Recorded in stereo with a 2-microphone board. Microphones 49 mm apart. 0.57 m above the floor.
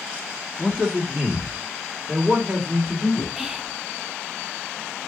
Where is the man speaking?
10° right (ahead or behind), 1.1 m; by 3.3 s 35° right (ahead or behind), 1.8 m.